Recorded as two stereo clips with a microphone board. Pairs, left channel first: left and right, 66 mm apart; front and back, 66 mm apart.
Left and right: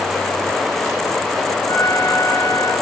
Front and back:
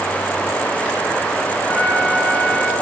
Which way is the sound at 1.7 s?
60° left.